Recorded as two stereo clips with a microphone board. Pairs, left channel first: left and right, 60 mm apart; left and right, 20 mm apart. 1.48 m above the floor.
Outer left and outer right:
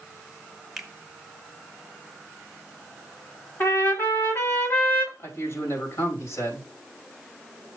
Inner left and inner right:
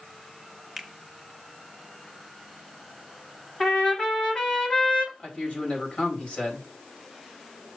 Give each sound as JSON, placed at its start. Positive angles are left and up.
{"t": 0.8, "sound": "a finger snap", "side_deg": -5, "distance_m": 1.9}
{"t": 3.6, "sound": "a trumpet", "side_deg": 40, "distance_m": 2.5}
{"t": 5.2, "sound": "a man speaking", "side_deg": 55, "distance_m": 4.0}